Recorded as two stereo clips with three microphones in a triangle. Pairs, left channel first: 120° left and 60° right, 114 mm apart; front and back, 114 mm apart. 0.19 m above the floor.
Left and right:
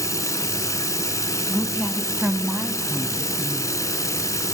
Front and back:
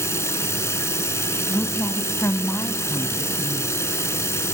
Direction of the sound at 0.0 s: 60° left.